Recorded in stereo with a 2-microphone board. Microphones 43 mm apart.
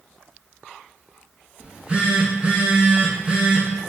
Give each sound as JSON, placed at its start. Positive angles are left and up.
{"t": 1.6, "sound": "a phone buzzing", "side_deg": -30, "distance_m": 0.9}